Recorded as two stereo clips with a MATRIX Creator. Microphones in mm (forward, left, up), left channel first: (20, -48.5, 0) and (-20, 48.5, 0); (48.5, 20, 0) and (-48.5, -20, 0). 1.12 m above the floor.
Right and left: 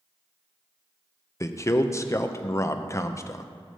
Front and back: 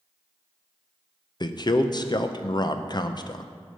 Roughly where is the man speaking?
Ahead.